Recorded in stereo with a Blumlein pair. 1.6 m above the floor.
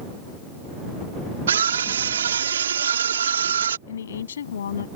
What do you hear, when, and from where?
1.5 s a scream: 65° right
3.9 s a woman speaking: 65° left